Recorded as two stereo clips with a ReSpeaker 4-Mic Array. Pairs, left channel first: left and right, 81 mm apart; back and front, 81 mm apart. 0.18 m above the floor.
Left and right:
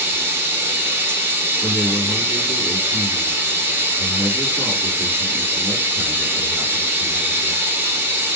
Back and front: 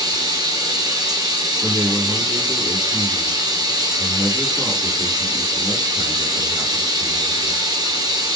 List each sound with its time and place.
0.0 s running water: 30° right, 1.0 m
1.6 s a man speaking: 55° right, 1.8 m